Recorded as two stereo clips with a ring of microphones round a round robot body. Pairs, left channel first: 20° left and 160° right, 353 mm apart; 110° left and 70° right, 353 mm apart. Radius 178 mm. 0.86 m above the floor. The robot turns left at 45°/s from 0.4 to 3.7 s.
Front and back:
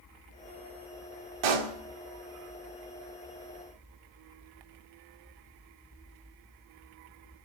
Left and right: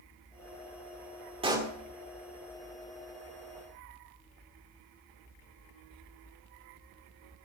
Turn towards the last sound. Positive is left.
turn(degrees=115)